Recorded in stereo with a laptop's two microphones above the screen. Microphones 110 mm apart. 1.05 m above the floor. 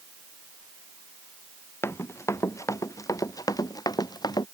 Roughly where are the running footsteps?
Left.